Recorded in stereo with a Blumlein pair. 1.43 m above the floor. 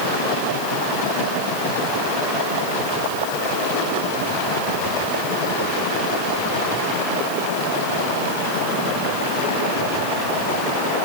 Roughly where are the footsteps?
No footsteps in this recording.